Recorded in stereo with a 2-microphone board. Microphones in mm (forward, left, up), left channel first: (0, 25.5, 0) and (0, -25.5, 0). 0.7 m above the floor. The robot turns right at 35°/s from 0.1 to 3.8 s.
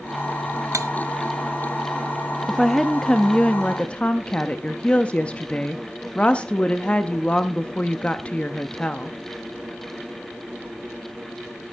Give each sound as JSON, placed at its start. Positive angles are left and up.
{"t": 0.7, "sound": "cutlery clinking", "side_deg": -70, "distance_m": 0.6}
{"t": 2.5, "sound": "a woman speaking", "azimuth_deg": 0, "distance_m": 0.6}